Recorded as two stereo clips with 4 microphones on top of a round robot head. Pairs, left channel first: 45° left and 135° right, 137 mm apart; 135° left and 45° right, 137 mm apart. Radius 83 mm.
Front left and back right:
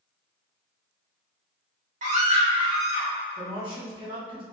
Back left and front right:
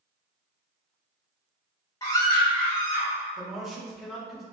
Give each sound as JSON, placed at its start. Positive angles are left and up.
{"t": 2.0, "sound": "a scream", "azimuth_deg": -160, "distance_m": 2.0}
{"t": 3.4, "sound": "a man speaking", "azimuth_deg": -135, "distance_m": 1.3}